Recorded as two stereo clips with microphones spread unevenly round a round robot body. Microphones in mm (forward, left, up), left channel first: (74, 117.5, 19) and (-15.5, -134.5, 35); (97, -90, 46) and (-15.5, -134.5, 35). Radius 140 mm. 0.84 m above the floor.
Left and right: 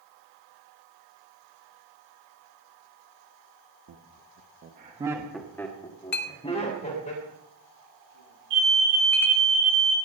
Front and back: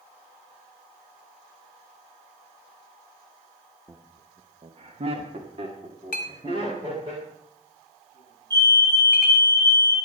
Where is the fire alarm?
105° right, 9.5 m.